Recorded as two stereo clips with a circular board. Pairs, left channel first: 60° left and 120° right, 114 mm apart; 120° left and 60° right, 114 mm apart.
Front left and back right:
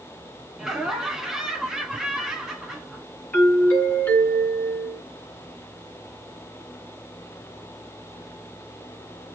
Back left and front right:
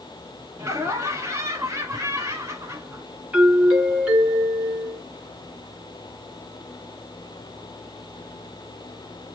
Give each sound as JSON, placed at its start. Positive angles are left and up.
{"t": 0.6, "sound": "laughter", "azimuth_deg": -40, "distance_m": 1.2}
{"t": 3.3, "sound": "a doorbell", "azimuth_deg": 5, "distance_m": 2.5}